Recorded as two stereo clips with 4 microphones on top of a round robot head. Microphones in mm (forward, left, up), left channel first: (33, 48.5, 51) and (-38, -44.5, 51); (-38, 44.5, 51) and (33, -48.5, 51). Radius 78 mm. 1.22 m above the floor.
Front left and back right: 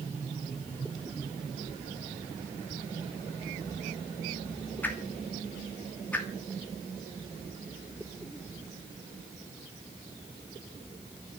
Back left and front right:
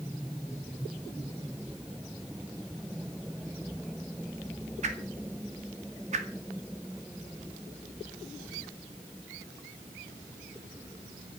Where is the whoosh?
25° right, 2.5 m.